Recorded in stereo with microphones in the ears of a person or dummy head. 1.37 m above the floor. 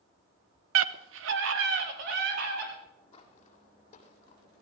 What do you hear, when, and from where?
0.8 s a scream: 90° right, 0.8 m; by 2.7 s 60° right (ahead or behind), 3.5 m
3.1 s footsteps: 30° left (ahead or behind), 2 m; by 4.6 s 50° left (ahead or behind), 2.5 m